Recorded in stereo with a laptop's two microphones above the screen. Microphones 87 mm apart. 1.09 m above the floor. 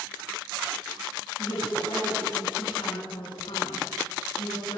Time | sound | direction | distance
1.4 | a woman speaking | 75° left (ahead or behind) | 10 m